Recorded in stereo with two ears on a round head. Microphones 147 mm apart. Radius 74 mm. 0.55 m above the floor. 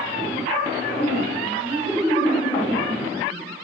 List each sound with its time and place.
1.0 s laughter: 20° right (ahead or behind), 7 m